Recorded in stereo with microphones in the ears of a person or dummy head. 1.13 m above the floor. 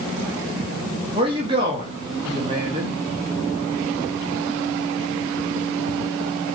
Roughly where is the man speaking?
Right.